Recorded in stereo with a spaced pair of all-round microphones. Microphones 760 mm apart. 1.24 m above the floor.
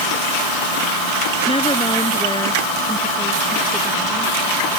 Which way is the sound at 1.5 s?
5° left (ahead or behind).